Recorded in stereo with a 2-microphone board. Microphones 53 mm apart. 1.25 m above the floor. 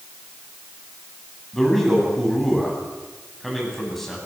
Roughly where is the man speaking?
Centre.